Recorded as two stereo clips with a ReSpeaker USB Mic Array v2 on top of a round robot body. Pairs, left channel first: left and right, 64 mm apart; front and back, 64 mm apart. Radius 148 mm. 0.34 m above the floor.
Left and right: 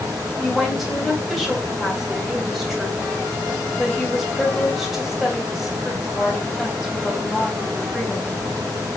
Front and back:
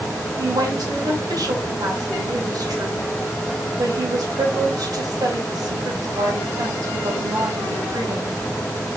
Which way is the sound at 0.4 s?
175° right.